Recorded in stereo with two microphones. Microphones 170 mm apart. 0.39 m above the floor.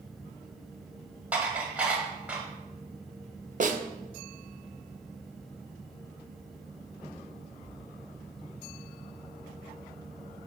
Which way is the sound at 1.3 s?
10° right (ahead or behind).